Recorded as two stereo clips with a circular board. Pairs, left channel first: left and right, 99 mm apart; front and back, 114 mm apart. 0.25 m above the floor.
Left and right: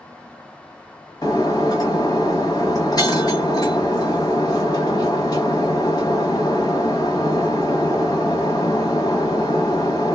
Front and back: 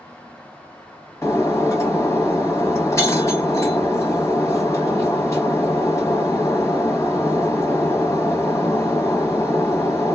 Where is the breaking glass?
55° left, 0.9 m.